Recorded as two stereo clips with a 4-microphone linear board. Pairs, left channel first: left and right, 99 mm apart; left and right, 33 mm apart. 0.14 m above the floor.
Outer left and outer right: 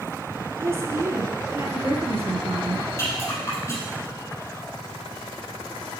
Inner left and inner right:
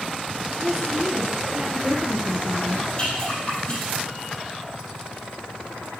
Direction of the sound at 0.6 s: 25° right (ahead or behind).